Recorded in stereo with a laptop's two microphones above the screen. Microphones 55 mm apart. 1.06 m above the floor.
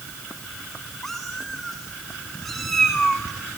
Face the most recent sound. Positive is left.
turn(degrees=5)  # may be behind; listen again after turning